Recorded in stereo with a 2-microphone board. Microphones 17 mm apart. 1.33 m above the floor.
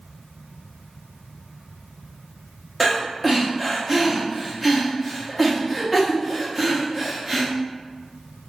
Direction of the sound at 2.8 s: Centre (ahead or behind).